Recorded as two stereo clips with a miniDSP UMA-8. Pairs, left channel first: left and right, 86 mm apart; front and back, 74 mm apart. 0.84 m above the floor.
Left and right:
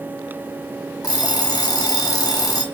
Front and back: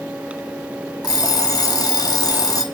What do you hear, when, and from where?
1.0 s an alarm clock: 40° left, 0.9 m